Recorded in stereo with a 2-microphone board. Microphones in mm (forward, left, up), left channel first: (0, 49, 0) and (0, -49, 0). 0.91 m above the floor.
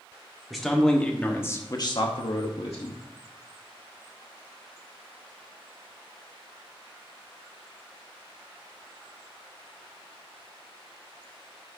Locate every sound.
0.5 s a man speaking: centre (ahead or behind), 1.8 m; by 3.0 s 75° left (ahead or behind), 1.3 m